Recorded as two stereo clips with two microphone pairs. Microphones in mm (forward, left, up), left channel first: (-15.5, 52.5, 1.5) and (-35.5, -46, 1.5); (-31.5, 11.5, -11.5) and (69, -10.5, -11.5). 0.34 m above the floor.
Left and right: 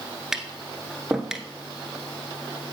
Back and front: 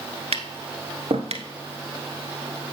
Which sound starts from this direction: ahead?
Tapping, at 0.3 s.